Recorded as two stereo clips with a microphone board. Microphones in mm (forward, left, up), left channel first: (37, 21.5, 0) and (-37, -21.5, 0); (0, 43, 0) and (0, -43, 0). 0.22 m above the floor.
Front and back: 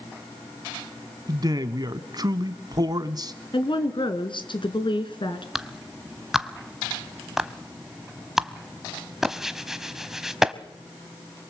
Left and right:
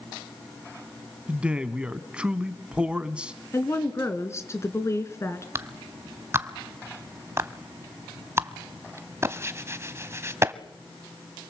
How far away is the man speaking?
About 1.4 m.